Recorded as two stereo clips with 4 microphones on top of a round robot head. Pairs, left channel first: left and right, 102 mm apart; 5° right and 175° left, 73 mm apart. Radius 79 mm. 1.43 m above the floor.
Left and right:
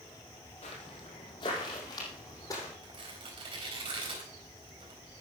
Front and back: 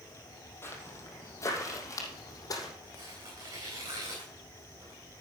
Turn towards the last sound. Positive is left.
turn(degrees=-125)